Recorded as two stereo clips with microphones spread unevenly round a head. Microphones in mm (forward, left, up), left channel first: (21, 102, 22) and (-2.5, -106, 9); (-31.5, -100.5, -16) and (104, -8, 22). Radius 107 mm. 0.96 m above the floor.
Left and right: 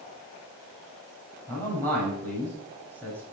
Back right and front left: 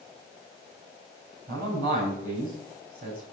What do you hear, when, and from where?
1.5 s a man speaking: straight ahead, 7 m